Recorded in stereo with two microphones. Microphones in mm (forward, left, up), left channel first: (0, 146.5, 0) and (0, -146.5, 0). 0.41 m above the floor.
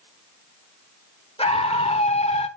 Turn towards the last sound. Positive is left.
turn(degrees=20)  # may be behind; listen again after turning